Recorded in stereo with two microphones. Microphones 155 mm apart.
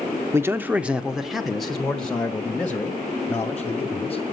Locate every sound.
0.3 s a man speaking: 20° right (ahead or behind), 0.7 m; by 4.2 s 10° left (ahead or behind), 2.5 m